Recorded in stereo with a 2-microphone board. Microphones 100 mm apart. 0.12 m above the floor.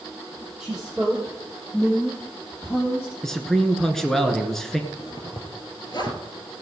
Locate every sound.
0.6 s a woman speaking: centre (ahead or behind), 4 m; by 3.1 s 30° left (ahead or behind), 4.5 m
3.2 s a man speaking: 5° left (ahead or behind), 1.7 m
4.9 s a zipper: 45° left (ahead or behind), 1.8 m